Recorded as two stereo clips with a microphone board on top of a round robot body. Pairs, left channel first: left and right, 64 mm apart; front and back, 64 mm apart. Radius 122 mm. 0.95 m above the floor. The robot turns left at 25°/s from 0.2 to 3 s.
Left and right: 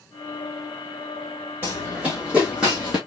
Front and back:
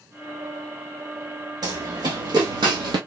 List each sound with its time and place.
1.6 s running footsteps: 155° right, 3.5 m; by 3.0 s 170° right, 1.7 m